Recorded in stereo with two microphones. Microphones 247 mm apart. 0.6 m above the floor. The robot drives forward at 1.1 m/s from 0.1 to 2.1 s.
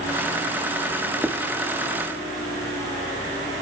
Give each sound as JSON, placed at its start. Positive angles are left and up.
{"t": 1.2, "sound": "writing", "side_deg": -10, "distance_m": 1.2}